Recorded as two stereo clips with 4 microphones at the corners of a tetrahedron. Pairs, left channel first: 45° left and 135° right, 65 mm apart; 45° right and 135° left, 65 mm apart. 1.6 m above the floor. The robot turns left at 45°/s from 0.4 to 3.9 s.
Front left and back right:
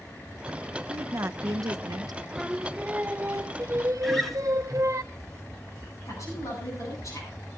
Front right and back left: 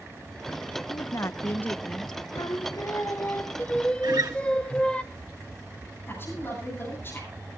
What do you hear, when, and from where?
0.9 s a woman speaking: 75° right, 0.6 m; by 2.2 s 135° right, 0.6 m
2.4 s singing: 45° right, 0.7 m; by 5.0 s 115° right, 0.7 m
4.0 s a guitar: 135° left, 1.6 m
6.1 s a woman speaking: 10° left, 8.5 m